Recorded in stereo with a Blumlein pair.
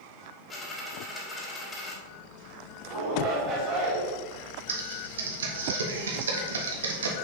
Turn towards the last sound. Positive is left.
turn(degrees=-65)